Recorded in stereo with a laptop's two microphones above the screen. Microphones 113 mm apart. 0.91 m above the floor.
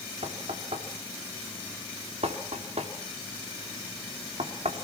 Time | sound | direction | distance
0.2 | knocking | 70° right (ahead or behind) | 2.5 m